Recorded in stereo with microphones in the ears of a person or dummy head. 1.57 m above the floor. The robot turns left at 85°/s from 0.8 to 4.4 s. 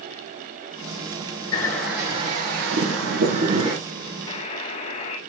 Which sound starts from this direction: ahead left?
A bird, at 1.5 s.